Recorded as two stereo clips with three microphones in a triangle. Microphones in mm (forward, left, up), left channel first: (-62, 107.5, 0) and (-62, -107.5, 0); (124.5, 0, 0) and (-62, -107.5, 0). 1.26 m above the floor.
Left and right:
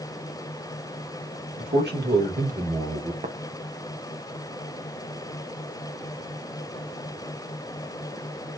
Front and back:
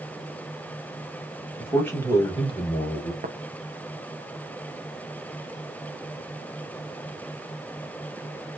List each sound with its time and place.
1.6 s a man speaking: 55° right, 1.5 m; by 3.1 s 20° right, 0.9 m
3.2 s tapping: 130° right, 0.5 m